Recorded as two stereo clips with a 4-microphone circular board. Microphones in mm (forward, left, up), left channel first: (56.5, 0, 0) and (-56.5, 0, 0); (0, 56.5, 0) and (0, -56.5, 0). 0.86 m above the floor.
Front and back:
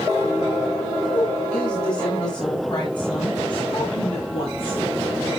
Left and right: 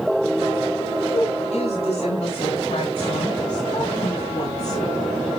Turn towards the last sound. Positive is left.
turn(degrees=35)